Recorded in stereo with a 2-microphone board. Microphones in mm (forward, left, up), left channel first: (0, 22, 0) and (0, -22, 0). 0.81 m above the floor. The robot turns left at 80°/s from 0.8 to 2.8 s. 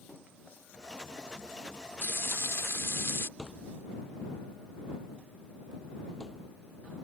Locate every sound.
2.0 s frying: 130° left; by 3.3 s 70° left
3.4 s a thud: 10° left (ahead or behind)